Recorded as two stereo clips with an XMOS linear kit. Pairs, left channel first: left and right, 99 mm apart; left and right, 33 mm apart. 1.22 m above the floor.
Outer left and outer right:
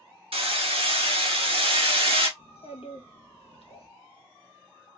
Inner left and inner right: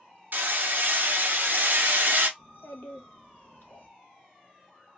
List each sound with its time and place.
0.3 s hammering: 70° right (ahead or behind), 0.9 m
2.4 s a child speaking: 80° left, 1.1 m